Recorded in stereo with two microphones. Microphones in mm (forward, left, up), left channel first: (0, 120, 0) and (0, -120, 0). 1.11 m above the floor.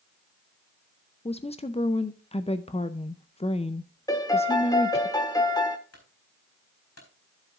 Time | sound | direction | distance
1.2 | a woman speaking | 25° left (ahead or behind) | 0.5 m
4.1 | a piano | 15° left (ahead or behind) | 1.4 m
5.9 | a clunk | 75° left (ahead or behind) | 4 m